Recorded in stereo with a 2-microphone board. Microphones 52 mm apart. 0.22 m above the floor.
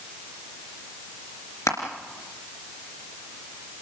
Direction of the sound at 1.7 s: 70° left (ahead or behind).